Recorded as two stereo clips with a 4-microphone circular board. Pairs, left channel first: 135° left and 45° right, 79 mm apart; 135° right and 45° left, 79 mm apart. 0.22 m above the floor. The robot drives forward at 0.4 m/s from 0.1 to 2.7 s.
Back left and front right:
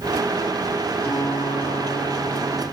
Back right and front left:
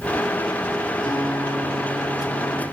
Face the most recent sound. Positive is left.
turn(degrees=-150)